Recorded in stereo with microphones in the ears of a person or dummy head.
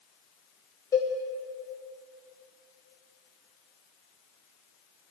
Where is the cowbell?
15° left (ahead or behind), 0.9 m.